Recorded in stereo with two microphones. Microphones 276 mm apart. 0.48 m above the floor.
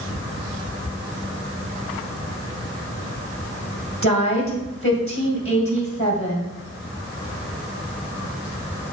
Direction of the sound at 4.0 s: 50° left (ahead or behind).